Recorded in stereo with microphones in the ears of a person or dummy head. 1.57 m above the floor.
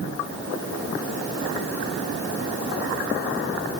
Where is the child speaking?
I don't hear a child speaking.